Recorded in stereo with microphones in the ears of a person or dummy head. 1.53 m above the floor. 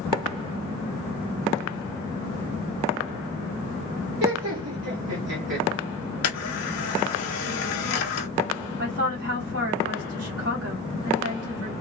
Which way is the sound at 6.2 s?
65° left (ahead or behind).